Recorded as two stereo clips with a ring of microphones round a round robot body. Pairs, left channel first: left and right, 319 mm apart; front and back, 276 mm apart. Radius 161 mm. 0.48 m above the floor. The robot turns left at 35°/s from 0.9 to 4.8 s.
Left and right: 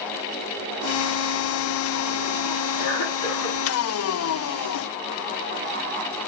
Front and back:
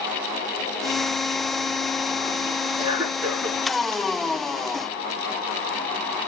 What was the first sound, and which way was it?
A cough, 110° left.